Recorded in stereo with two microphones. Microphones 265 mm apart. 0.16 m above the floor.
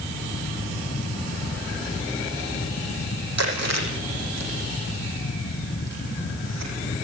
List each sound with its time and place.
3.4 s chewing: 70° right (ahead or behind), 9 m